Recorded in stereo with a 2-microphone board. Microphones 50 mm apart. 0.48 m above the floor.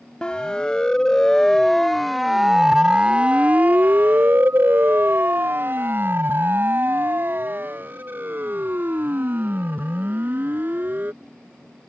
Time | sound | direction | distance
0.2 | a siren | 20° left (ahead or behind) | ?